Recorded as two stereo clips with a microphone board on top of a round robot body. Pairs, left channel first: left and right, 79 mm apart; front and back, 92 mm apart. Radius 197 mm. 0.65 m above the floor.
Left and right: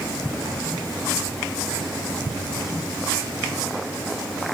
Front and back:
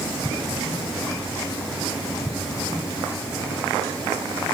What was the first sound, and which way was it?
Only background noise.